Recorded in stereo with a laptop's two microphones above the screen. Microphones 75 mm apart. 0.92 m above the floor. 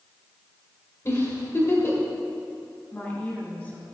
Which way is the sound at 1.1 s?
35° left (ahead or behind).